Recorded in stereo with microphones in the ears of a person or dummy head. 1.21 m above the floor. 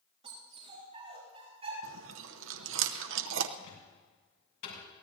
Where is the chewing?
80° right, 0.9 m.